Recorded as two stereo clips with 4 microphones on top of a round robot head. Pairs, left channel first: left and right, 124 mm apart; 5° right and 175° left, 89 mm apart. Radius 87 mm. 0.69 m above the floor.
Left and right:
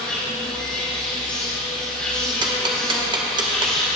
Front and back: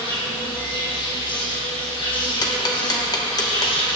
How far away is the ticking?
About 1.0 m.